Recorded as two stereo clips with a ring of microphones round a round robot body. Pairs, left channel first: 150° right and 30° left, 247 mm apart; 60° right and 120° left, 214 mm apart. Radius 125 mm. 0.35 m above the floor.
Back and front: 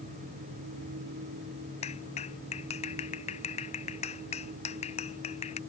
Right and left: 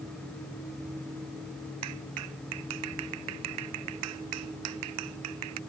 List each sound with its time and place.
1.8 s a clap: 145° left